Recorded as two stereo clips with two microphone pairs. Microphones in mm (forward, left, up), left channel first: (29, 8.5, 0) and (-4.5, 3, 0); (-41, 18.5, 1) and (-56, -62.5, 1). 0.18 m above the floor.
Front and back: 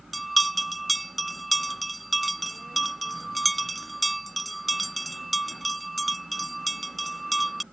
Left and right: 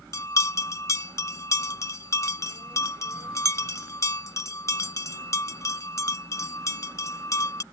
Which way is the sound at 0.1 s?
100° left.